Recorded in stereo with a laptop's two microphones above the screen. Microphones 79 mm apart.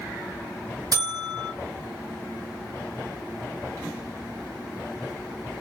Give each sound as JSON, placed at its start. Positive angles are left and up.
{"t": 0.9, "sound": "a buzzer", "side_deg": -50, "distance_m": 1.6}